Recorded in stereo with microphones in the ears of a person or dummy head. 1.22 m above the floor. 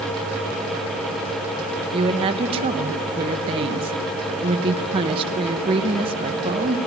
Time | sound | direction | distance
1.9 | a woman speaking | 30° right (ahead or behind) | 1.5 m